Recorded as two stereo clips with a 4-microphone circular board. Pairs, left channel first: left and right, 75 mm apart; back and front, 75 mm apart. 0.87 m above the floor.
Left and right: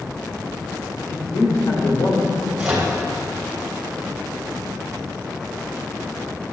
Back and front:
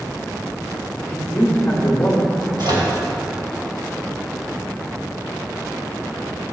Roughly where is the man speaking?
Left.